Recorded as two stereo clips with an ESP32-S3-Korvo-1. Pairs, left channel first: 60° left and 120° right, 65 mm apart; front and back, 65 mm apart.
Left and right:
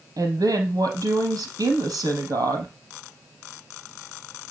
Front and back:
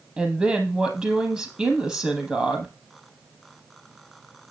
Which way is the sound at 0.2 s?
105° right.